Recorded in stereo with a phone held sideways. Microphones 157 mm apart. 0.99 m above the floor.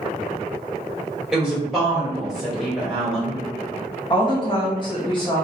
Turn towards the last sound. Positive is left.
turn(degrees=30)  # may be behind; listen again after turning